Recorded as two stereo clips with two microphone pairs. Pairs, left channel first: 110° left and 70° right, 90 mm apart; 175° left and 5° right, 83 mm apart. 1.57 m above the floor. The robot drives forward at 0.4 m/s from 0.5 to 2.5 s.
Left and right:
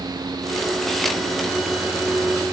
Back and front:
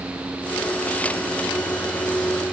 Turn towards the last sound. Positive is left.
No sound to turn to.